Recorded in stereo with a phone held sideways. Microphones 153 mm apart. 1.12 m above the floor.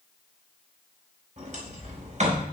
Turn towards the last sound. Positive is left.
turn(degrees=-50)  # may be behind; listen again after turning